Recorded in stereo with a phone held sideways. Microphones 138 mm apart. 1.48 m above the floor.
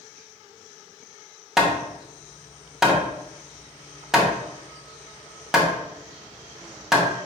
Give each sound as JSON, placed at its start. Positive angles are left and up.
{"t": 1.6, "sound": "hammering", "side_deg": -5, "distance_m": 0.7}